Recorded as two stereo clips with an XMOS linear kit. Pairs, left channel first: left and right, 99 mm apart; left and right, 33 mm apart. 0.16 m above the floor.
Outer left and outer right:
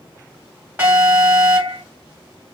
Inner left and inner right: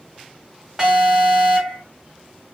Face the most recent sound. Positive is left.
turn(degrees=-20)  # may be behind; listen again after turning